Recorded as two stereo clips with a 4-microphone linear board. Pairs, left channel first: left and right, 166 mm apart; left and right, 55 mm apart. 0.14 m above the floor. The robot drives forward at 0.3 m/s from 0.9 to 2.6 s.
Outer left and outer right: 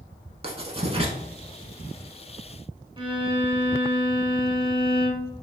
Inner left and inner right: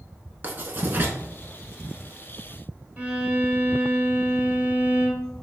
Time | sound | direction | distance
0.4 | writing | 35° right (ahead or behind) | 0.5 m
3.0 | a violin | 30° right (ahead or behind) | 0.6 m